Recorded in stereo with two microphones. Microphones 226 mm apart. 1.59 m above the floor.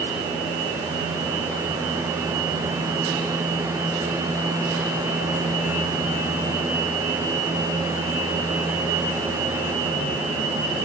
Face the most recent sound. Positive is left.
No sound to turn to.